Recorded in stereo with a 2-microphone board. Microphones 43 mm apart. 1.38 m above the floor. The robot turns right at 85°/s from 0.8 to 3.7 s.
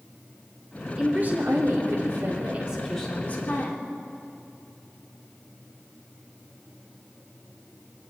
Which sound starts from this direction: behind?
A woman speaking, at 1.0 s.